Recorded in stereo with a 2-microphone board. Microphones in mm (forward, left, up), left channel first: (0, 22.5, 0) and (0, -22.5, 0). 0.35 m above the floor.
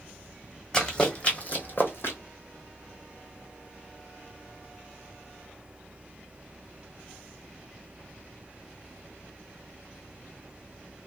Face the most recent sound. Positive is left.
turn(degrees=65)  # may be behind; listen again after turning